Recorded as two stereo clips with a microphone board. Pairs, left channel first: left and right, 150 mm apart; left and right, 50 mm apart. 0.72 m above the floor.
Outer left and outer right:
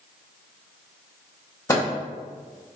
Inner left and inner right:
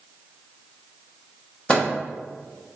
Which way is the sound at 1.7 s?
20° left (ahead or behind).